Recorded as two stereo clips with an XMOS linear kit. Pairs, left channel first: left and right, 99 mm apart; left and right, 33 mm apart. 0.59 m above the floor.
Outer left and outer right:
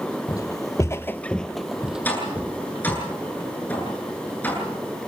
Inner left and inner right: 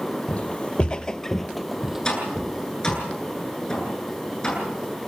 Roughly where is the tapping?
Centre.